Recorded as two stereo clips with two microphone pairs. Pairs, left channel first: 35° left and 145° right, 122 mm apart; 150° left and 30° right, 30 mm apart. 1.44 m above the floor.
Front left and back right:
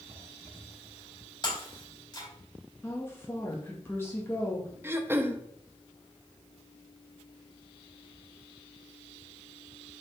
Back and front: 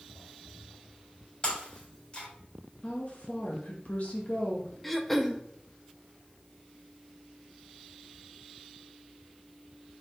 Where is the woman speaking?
105° left, 2 m.